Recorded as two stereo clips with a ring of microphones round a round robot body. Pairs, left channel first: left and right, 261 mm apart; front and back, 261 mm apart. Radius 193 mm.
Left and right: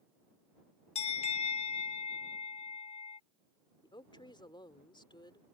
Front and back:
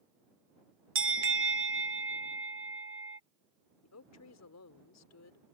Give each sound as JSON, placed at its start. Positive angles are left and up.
{"t": 0.9, "sound": "a bell", "azimuth_deg": 155}
{"t": 3.8, "sound": "a woman speaking", "azimuth_deg": 15}